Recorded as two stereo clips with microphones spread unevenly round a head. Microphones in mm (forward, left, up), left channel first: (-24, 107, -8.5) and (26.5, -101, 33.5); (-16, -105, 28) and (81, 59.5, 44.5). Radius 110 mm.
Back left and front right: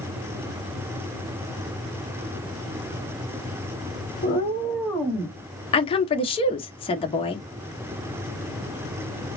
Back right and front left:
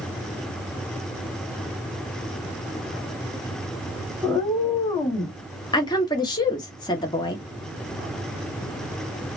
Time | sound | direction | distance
4.2 | a cat meowing | 155° left | 1.3 m
5.7 | a woman speaking | 170° left | 0.8 m